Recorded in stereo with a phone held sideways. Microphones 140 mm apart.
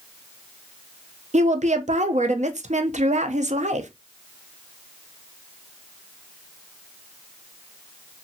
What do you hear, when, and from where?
1.3 s a woman speaking: 55° right (ahead or behind), 0.5 m